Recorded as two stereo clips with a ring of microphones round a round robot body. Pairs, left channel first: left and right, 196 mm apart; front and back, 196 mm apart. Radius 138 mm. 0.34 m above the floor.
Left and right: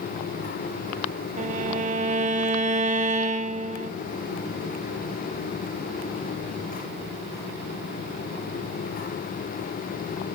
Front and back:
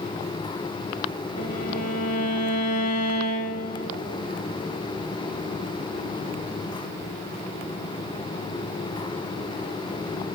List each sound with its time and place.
1.4 s a violin: 30° right, 0.6 m